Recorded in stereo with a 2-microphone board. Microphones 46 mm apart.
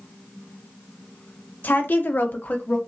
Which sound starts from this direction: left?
A woman speaking, at 1.6 s.